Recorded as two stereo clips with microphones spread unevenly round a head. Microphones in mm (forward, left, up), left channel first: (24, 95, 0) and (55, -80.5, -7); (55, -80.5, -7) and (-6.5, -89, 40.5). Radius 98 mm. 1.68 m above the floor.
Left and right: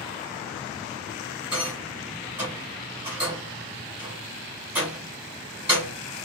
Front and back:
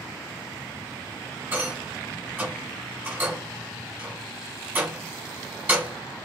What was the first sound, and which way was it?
A rattle, 160° right.